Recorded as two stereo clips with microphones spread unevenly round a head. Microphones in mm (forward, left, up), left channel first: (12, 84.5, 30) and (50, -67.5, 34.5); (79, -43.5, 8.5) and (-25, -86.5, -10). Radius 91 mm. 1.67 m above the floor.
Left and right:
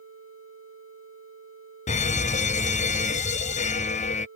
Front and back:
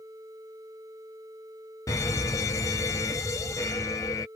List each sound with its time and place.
1.9 s a fire alarm: 95° left